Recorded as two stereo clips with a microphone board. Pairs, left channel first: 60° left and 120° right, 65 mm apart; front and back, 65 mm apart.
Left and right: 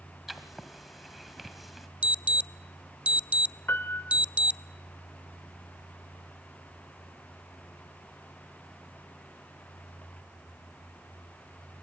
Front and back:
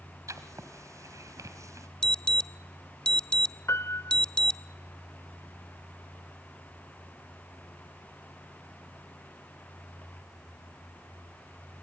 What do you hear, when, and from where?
0.3 s writing: 155° left, 1.8 m
2.0 s an alarm: 65° right, 0.5 m
3.7 s a piano: 20° left, 0.5 m